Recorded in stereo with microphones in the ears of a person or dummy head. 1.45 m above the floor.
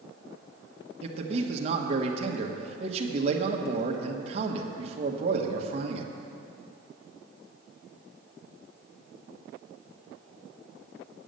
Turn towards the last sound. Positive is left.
turn(degrees=-40)  # may be behind; listen again after turning